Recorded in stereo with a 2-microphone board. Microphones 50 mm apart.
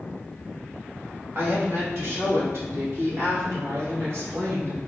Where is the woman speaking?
50° right (ahead or behind), 1.5 m; by 4.8 s 70° right (ahead or behind), 3.5 m.